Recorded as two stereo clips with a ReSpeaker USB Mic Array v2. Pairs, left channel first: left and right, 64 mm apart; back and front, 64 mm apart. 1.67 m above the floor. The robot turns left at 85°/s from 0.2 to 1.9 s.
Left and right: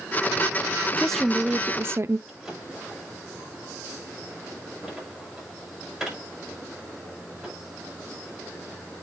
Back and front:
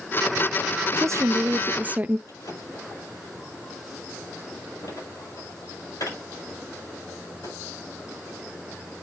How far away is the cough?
No cough in this recording.